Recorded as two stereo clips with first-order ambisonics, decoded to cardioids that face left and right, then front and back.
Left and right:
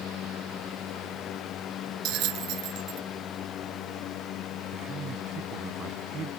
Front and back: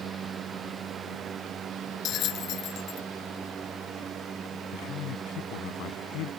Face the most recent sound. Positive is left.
turn(degrees=-30)